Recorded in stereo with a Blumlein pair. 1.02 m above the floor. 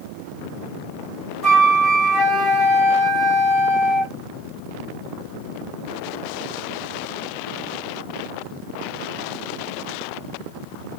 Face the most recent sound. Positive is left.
turn(degrees=0)